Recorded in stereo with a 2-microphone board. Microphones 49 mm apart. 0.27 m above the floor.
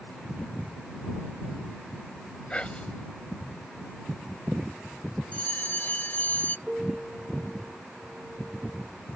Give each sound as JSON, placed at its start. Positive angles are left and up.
{"t": 2.5, "sound": "whispering", "side_deg": 25}
{"t": 5.3, "sound": "a bell", "side_deg": 35}
{"t": 6.7, "sound": "a piano", "side_deg": -10}